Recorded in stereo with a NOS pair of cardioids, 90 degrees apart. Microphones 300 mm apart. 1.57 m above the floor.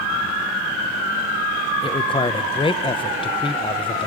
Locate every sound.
1.8 s a man speaking: 20° left, 1.0 m